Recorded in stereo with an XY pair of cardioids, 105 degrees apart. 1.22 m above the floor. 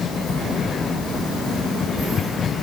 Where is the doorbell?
No doorbell in this recording.